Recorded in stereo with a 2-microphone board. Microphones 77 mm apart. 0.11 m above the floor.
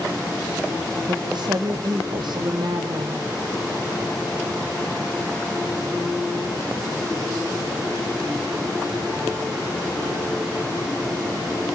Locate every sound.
1.1 s a woman speaking: 70° right (ahead or behind), 4.5 m